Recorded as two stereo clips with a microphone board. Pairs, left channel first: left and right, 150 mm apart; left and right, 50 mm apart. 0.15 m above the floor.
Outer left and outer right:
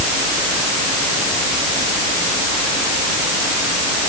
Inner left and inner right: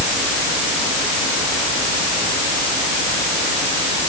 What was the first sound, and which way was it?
Only background noise.